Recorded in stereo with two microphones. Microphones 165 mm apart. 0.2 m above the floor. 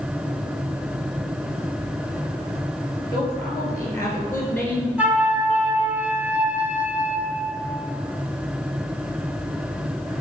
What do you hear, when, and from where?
3.1 s a woman speaking: 25° left (ahead or behind), 3.5 m; by 4.9 s 10° left (ahead or behind), 2.5 m
5.0 s a flute: 10° right (ahead or behind), 1.2 m